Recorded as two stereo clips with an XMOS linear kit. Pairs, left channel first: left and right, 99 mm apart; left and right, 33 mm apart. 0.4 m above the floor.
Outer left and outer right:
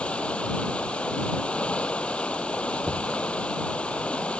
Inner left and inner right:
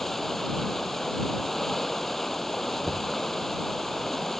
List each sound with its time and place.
0.0 s running water: 10° left (ahead or behind)
2.8 s knocking: 20° left (ahead or behind)